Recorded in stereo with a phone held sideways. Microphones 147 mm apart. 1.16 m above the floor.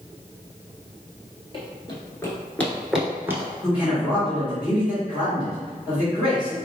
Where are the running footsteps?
40° left (ahead or behind), 1.4 m; by 3.5 s 20° right (ahead or behind), 1.2 m.